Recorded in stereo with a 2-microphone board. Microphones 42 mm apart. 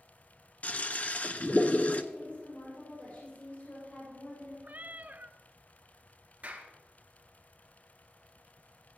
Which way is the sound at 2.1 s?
55° left (ahead or behind).